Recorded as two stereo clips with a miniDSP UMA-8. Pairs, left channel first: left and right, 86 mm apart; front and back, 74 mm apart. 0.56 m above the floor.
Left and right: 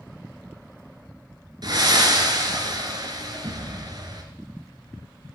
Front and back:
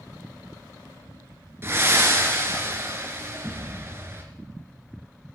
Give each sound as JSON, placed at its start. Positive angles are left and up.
{"t": 1.6, "sound": "breathing", "azimuth_deg": -125, "distance_m": 1.6}